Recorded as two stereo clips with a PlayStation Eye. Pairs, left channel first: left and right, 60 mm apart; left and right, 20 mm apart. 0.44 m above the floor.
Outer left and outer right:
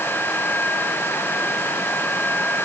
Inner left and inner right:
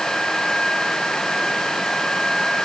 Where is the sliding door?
I don't hear a sliding door.